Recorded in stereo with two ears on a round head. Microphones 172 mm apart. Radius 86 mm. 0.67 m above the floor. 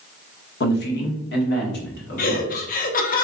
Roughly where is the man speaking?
Left.